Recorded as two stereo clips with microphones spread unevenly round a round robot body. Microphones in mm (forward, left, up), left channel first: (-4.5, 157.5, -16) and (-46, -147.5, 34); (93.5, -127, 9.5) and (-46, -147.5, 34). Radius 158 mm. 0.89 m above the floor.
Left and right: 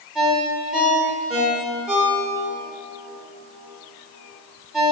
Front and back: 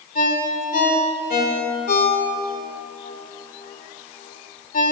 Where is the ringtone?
10° right, 1.7 m.